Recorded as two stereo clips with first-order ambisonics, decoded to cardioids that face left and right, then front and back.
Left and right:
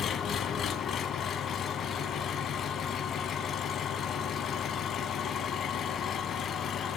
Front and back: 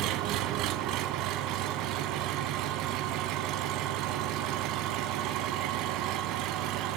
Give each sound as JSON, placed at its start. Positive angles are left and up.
{"t": 0.0, "sound": "an engine running", "azimuth_deg": 150, "distance_m": 0.9}